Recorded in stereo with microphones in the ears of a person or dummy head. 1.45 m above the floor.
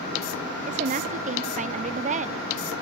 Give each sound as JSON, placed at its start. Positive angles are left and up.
{"t": 0.7, "sound": "a woman speaking", "side_deg": -35, "distance_m": 0.6}